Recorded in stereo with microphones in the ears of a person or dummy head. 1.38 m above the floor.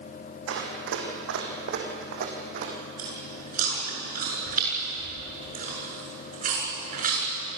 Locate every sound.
0.5 s running footsteps: 70° right (ahead or behind), 4 m; by 2.7 s 50° right (ahead or behind), 3.5 m
3.0 s chewing: 50° right (ahead or behind), 7 m